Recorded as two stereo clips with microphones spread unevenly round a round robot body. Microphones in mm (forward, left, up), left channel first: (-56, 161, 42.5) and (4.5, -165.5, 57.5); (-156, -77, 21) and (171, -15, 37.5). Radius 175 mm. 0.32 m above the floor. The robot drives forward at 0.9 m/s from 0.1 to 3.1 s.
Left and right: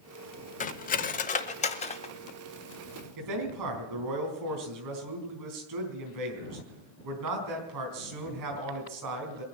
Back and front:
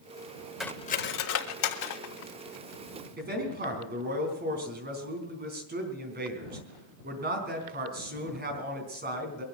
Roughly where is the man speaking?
Ahead right.